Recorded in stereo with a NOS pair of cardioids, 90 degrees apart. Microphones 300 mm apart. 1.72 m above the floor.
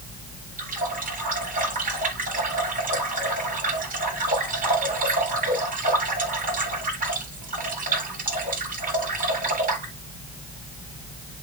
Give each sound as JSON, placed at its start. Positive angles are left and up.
{"t": 0.6, "sound": "a running tap", "azimuth_deg": -30, "distance_m": 7.5}